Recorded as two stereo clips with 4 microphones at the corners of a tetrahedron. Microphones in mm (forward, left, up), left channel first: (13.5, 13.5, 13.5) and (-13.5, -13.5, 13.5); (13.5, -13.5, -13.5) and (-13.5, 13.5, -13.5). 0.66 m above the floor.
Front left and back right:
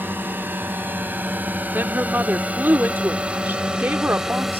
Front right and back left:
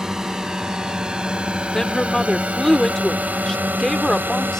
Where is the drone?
150° right; by 4.6 s 145° left.